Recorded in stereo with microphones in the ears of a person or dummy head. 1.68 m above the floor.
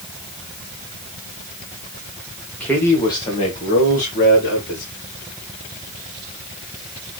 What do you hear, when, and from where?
2.6 s a man speaking: 5° left (ahead or behind), 1.3 m; by 4.8 s 65° left (ahead or behind), 1.7 m